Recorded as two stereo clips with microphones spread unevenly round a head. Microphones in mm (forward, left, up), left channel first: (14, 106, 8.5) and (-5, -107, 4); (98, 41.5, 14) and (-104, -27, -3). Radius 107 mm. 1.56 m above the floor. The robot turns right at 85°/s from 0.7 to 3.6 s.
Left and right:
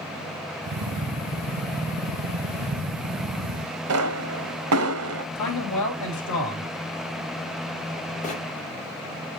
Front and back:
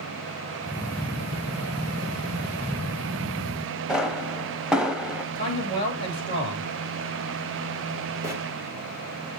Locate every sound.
3.9 s a pop: 75° right, 0.8 m
5.3 s a man speaking: 90° left, 3 m
8.2 s a bird: 125° left, 1.7 m